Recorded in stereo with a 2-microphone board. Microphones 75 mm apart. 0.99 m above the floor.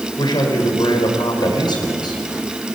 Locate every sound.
0.2 s a man speaking: 75° left (ahead or behind), 5 m